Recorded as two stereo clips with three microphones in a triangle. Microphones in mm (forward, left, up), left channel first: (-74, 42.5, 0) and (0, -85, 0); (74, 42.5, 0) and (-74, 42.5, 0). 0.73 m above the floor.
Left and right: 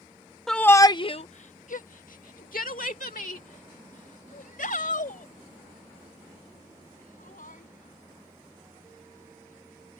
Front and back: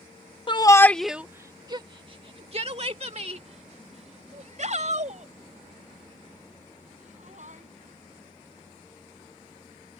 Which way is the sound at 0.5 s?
35° left.